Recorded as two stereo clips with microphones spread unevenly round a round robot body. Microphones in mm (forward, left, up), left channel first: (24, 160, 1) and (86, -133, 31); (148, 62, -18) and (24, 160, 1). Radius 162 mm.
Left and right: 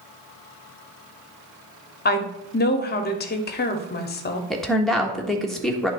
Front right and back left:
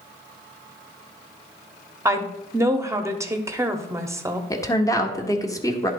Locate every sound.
2.0 s a woman speaking: 65° left, 1.1 m
4.5 s a woman speaking: 20° left, 1.3 m